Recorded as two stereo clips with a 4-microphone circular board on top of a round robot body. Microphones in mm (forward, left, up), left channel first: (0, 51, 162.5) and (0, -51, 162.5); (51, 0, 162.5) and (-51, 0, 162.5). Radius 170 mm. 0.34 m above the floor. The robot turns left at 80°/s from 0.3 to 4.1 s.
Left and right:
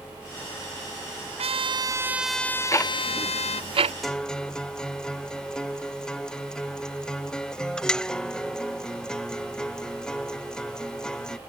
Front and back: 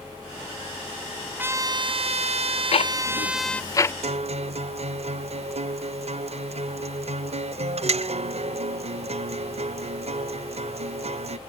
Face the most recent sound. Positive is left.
turn(degrees=175)